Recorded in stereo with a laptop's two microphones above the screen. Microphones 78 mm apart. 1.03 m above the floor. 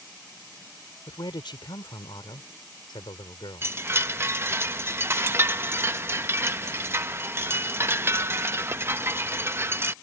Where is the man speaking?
80° left.